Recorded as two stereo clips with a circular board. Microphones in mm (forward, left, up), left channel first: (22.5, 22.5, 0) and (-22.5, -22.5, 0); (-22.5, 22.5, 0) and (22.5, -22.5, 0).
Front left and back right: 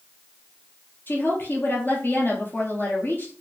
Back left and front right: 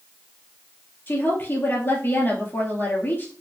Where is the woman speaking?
95° left, 2.0 m.